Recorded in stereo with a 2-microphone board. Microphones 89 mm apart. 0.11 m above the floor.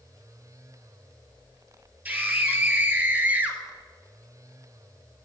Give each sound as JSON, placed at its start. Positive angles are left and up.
{"t": 2.0, "sound": "a scream", "side_deg": -20, "distance_m": 2.5}